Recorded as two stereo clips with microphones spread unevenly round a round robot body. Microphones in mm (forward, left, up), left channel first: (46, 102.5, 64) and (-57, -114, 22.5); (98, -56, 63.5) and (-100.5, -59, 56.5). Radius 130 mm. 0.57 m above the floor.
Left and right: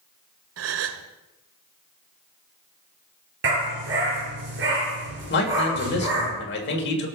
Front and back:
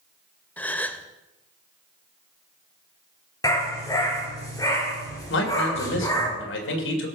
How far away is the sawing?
No sawing in this recording.